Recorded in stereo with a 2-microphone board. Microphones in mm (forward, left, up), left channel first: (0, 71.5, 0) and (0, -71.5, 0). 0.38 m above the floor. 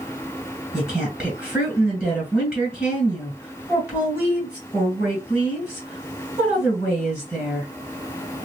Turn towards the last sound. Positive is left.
turn(degrees=-15)  # may be behind; listen again after turning